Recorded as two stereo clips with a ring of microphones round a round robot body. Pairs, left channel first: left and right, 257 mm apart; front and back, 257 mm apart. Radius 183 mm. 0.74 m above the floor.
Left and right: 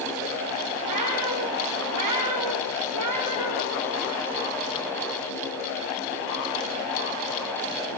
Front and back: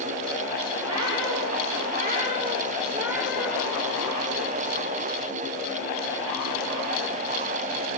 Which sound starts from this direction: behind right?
A cat meowing, at 0.8 s.